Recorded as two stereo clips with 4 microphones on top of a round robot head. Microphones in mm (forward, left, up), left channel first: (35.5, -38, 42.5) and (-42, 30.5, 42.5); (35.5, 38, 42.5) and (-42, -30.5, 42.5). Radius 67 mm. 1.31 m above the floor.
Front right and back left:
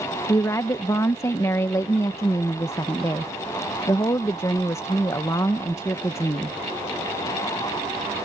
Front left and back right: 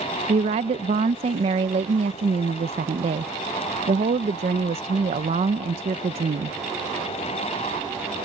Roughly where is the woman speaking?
Right.